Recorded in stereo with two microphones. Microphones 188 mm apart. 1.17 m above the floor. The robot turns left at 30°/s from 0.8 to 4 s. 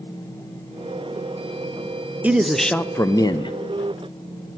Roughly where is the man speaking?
Behind.